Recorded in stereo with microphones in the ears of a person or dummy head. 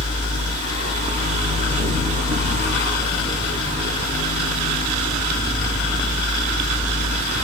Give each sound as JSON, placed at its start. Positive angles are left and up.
{"t": 0.0, "sound": "a fan", "side_deg": -25, "distance_m": 0.8}